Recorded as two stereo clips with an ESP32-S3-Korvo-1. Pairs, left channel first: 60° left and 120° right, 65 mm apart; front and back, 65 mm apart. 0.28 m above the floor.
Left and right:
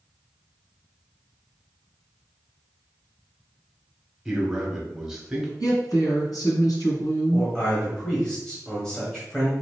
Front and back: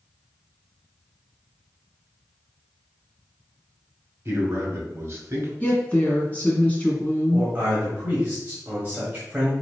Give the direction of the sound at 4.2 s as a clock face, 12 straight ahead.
7 o'clock.